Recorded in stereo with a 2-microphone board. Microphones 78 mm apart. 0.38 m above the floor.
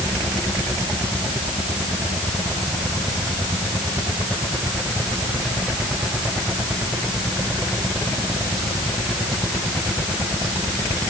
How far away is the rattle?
I don't hear a rattle.